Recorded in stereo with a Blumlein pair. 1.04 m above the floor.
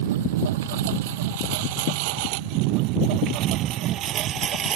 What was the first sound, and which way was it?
A lawn mower, 55° right.